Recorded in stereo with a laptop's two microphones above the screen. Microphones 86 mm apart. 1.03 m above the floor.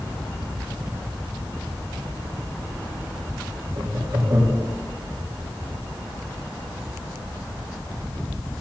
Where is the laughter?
60° right (ahead or behind), 3 m.